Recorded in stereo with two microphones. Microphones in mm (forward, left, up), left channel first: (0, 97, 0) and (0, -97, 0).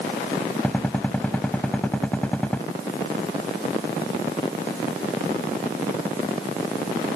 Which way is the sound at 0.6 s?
5° left (ahead or behind).